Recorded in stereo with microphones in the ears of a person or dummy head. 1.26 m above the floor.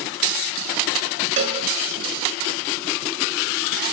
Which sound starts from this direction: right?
A cowbell, at 1.4 s.